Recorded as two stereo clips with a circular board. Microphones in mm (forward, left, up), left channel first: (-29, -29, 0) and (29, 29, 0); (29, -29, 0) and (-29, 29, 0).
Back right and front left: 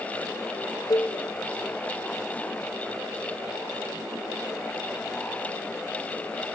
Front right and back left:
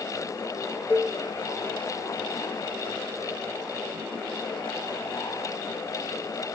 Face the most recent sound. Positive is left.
turn(degrees=-160)